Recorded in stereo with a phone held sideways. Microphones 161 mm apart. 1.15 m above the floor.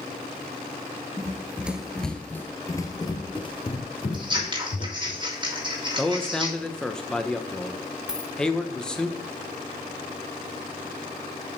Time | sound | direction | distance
1.2 | running footsteps | 20° right (ahead or behind) | 1.1 m
4.1 | scissors | 30° right (ahead or behind) | 2 m
6.0 | a man speaking | 5° left (ahead or behind) | 0.9 m
8.1 | a dropped coin | 5° right (ahead or behind) | 0.7 m